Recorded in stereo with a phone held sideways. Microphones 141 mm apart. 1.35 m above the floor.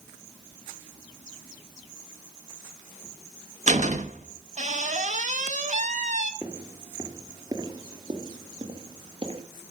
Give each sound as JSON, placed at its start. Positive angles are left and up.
{"t": 3.7, "sound": "a door slam", "side_deg": -55, "distance_m": 1.0}
{"t": 6.4, "sound": "footsteps", "side_deg": -15, "distance_m": 1.8}